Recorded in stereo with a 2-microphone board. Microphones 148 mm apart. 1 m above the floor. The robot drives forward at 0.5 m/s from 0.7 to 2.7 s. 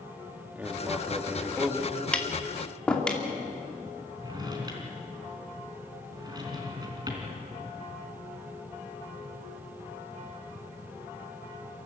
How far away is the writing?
About 2.0 m.